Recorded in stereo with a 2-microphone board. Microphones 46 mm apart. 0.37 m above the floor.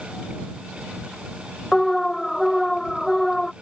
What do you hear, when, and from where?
1.7 s an alarm: 10° left (ahead or behind)